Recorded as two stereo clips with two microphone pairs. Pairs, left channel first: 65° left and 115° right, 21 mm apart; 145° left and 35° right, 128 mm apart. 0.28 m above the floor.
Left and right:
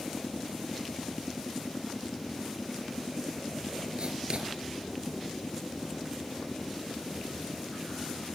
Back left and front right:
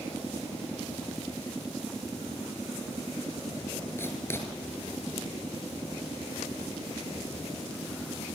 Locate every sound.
4.0 s writing: 150° right, 3.5 m